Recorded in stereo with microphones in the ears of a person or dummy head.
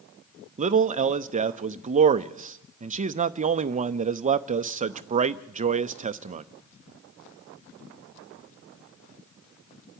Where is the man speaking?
40° right (ahead or behind), 0.6 m.